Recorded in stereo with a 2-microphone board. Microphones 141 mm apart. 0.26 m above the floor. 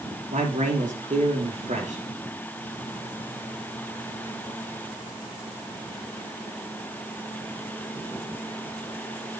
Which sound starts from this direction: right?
A man speaking, at 0.3 s.